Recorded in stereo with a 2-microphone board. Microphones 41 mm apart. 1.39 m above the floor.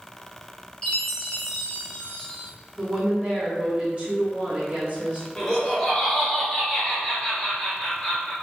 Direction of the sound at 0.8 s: 15° left (ahead or behind).